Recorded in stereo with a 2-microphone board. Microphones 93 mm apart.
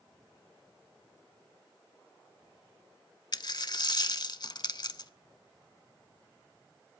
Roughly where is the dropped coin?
Left.